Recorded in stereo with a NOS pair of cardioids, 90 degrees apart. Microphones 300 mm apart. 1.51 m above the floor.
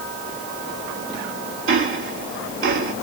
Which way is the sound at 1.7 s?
45° right.